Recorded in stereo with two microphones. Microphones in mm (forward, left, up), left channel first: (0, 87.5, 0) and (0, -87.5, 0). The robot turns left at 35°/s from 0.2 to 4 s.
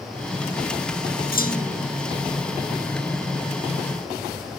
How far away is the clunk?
About 1.3 m.